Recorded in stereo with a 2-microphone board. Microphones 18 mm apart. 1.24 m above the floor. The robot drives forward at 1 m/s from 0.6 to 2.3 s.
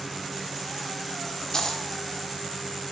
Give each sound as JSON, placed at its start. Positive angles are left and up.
{"t": 1.5, "sound": "a dropped coin", "side_deg": 40, "distance_m": 1.2}